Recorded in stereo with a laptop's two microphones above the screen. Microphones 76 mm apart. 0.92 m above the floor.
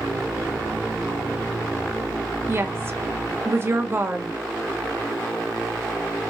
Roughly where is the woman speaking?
Right.